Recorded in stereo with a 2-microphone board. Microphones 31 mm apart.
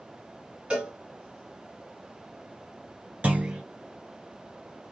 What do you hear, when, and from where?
0.7 s a cowbell: 30° right (ahead or behind), 1.6 m
3.2 s a clunk: 40° right (ahead or behind), 1.9 m